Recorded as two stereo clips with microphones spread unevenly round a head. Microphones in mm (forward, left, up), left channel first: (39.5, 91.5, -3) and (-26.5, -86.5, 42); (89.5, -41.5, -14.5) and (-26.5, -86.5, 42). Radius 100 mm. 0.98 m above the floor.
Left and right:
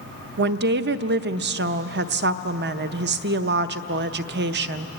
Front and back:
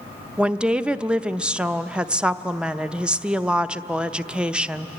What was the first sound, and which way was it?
A woman speaking, 70° right.